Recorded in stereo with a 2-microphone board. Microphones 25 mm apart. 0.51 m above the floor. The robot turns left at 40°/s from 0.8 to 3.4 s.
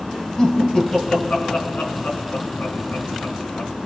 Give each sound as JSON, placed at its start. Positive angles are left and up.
{"t": 0.4, "sound": "laughter", "side_deg": 30, "distance_m": 5.0}